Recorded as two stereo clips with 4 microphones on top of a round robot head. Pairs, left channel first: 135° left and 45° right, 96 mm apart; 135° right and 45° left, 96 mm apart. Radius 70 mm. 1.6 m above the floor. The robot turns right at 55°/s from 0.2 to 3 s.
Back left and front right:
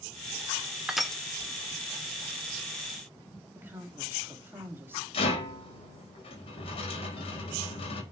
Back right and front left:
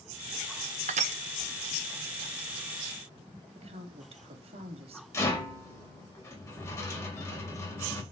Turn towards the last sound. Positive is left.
turn(degrees=165)